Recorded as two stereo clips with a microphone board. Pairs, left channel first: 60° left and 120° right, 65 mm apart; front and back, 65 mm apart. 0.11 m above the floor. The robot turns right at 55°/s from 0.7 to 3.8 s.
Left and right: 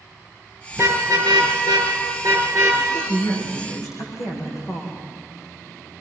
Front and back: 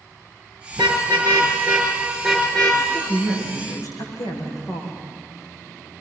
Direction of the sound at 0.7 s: 175° right.